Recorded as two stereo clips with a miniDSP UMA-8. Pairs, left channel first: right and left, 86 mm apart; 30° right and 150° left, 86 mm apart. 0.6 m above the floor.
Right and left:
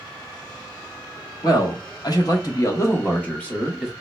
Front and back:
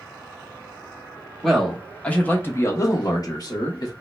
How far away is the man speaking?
About 1.2 m.